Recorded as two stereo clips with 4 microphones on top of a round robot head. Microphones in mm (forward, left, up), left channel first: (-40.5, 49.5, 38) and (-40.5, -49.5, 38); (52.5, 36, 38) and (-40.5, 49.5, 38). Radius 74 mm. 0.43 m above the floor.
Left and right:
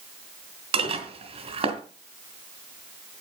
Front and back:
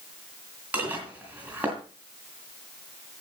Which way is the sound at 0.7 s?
110° right.